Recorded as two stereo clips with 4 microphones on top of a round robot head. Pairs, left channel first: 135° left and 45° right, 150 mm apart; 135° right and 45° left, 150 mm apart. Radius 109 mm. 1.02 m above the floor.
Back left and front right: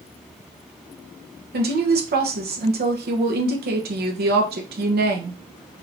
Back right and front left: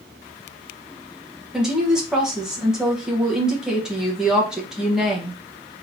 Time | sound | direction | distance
1.5 | a woman speaking | 40° right | 0.9 m